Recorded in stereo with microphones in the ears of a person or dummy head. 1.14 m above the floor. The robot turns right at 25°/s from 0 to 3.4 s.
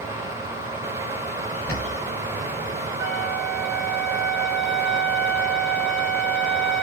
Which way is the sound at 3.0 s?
50° right (ahead or behind).